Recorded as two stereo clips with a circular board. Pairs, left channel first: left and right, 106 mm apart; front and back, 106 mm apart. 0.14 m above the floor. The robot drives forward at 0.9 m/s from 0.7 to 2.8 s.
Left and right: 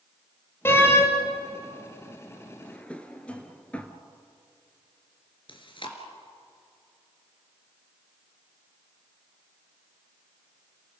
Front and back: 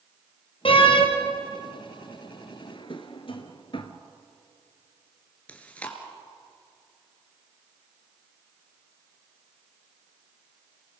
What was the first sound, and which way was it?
A door slam, 25° left.